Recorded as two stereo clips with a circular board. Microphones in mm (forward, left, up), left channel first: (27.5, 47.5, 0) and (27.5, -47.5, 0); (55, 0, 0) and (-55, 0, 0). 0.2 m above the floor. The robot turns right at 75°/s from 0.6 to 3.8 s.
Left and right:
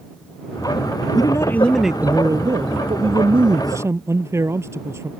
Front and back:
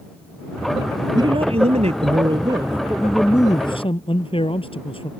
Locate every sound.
1.1 s a man speaking: 130° left; by 5.1 s 30° right